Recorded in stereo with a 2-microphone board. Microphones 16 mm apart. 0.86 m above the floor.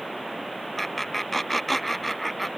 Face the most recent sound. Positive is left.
turn(degrees=0)  # may be behind; listen again after turning